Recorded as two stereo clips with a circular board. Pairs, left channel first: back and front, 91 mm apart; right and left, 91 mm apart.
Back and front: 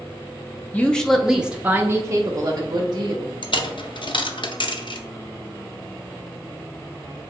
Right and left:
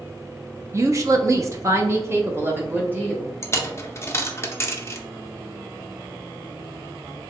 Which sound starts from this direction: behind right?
A dropped coin, at 3.4 s.